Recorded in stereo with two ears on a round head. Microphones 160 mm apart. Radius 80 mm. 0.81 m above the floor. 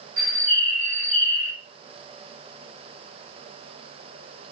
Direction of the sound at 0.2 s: 85° right.